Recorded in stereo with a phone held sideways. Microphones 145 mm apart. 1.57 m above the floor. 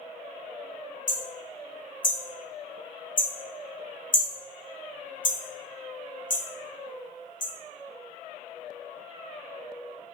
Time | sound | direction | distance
1.1 | hammering | 65° left (ahead or behind) | 1.0 m